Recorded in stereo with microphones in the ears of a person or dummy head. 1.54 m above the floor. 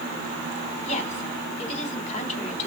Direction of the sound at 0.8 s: 45° left (ahead or behind).